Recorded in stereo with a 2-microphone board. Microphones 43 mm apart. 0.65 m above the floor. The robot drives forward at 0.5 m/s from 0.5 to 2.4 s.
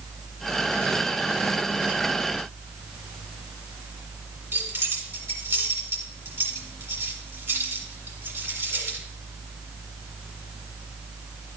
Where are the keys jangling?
55° right (ahead or behind), 2 m.